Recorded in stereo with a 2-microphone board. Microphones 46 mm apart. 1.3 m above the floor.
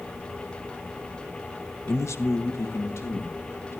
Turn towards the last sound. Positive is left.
turn(degrees=70)  # may be behind; listen again after turning